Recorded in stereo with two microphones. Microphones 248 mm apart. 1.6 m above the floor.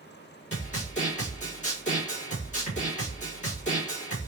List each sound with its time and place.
0.5 s a snare drum: 30° left (ahead or behind), 2.5 m